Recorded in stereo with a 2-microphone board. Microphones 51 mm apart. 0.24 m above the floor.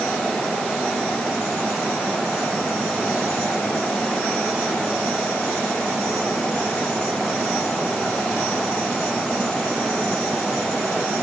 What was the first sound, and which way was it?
Only background noise.